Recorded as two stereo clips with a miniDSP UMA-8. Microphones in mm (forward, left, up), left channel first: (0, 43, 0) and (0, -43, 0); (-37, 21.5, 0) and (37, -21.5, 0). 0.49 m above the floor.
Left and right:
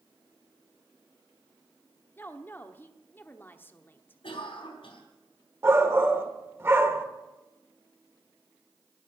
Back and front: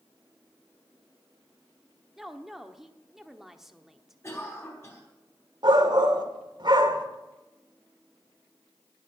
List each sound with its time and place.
2.2 s a woman speaking: 50° left, 1.0 m
4.2 s a cough: 90° left, 4 m
5.6 s a shout: 35° right, 1.7 m